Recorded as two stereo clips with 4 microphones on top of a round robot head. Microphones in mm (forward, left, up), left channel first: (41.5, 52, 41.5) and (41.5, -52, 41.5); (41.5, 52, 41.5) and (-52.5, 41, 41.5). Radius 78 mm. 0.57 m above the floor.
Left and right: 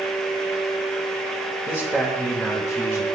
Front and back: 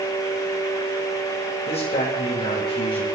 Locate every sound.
1.7 s a man speaking: 5° right, 2.5 m; by 3.0 s 10° left, 1.8 m